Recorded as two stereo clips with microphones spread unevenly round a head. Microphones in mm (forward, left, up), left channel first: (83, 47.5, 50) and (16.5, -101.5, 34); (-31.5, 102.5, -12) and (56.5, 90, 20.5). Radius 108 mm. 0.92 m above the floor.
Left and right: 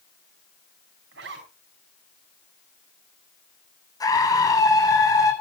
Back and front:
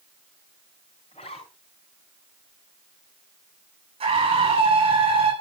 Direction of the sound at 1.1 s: 130° right.